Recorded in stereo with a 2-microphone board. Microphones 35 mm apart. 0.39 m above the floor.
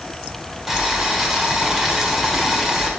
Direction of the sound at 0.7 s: 10° right (ahead or behind).